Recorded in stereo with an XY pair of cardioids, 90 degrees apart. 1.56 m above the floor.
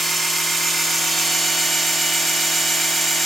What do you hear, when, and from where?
0.0 s a machine running: 55° right, 3 m